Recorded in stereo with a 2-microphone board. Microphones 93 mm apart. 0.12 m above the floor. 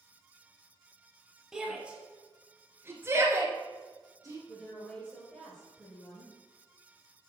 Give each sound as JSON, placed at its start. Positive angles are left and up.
{"t": 1.5, "sound": "a shout", "side_deg": -5, "distance_m": 3.0}
{"t": 4.5, "sound": "a woman speaking", "side_deg": 10, "distance_m": 2.5}